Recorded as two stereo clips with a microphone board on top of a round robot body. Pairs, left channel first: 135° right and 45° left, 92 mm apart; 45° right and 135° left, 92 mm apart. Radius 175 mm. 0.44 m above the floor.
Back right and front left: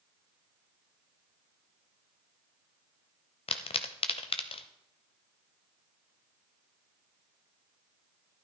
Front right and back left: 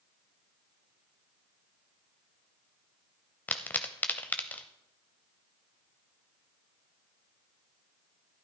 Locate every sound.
3.5 s a pop: 120° right, 0.6 m